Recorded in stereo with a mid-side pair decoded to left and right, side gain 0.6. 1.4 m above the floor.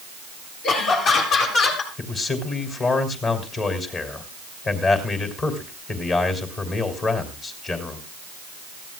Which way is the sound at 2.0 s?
40° left.